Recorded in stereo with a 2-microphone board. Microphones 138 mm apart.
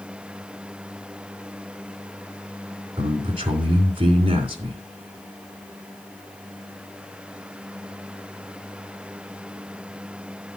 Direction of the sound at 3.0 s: 35° right (ahead or behind).